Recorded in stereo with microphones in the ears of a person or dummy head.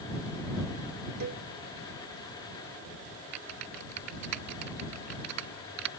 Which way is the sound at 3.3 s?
65° right (ahead or behind).